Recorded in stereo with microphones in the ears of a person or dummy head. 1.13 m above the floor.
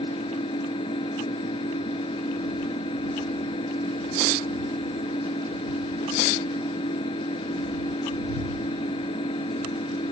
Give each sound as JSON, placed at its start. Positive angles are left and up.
{"t": 0.0, "sound": "an engine running", "side_deg": 30}